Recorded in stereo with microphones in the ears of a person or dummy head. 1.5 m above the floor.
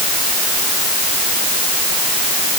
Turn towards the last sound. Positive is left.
No sound to turn to.